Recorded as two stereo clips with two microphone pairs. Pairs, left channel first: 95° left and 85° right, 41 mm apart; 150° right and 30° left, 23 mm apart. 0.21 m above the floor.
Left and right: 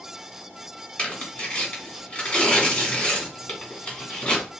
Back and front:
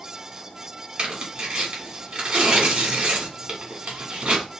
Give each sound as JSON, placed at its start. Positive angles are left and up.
{"t": 1.0, "sound": "tearing paper", "azimuth_deg": 45, "distance_m": 1.3}